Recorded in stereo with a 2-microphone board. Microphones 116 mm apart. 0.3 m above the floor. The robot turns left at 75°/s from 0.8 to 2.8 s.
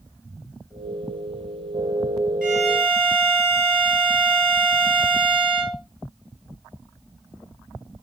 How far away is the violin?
About 2.5 m.